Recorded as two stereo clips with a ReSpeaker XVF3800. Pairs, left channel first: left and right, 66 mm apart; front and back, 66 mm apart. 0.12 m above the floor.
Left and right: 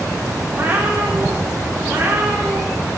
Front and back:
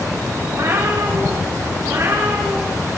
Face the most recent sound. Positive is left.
turn(degrees=-140)